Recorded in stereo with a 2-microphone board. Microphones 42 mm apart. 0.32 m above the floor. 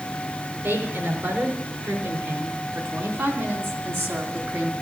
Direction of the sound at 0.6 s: 75° right (ahead or behind).